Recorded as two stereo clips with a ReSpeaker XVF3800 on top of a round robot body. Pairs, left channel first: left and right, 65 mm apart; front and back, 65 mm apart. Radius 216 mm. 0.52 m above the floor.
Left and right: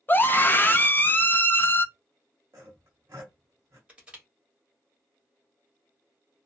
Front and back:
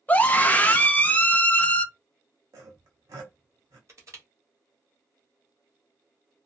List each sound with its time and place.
0.1 s a scream: 50° left, 0.9 m
2.5 s sawing: 145° right, 0.5 m
3.9 s crushing: 160° right, 1.7 m